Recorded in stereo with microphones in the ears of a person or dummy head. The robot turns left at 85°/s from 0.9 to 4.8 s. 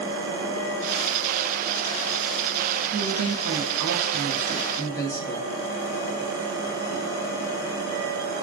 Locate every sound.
2.9 s a woman speaking: 40° right, 0.7 m; by 5.5 s 160° left, 0.7 m